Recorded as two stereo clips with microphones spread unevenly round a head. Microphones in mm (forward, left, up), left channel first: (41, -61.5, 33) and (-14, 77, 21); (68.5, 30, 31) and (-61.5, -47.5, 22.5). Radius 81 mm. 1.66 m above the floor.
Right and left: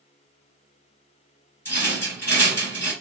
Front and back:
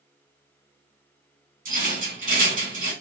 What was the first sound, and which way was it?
A rattle, 135° right.